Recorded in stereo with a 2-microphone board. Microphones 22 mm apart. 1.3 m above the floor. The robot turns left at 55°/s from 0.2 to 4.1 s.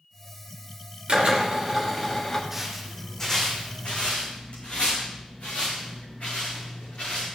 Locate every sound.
1.1 s a drill: 130° right, 2.5 m; by 2.4 s 155° left, 2.5 m
2.5 s footsteps: 10° right (ahead or behind), 3 m; by 7.3 s 65° left (ahead or behind), 7.5 m